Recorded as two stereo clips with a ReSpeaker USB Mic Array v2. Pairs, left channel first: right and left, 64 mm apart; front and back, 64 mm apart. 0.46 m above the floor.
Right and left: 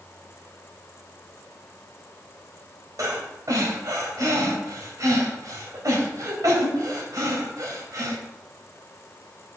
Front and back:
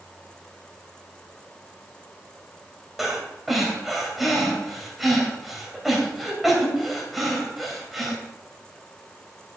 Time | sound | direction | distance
3.0 | breathing | 95° left | 2.5 m